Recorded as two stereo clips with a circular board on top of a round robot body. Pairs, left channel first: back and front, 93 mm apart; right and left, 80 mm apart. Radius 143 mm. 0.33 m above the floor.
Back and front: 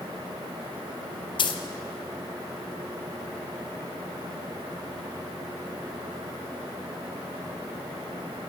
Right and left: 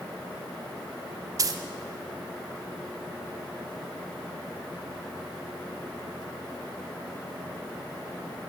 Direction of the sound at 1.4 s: 140° left.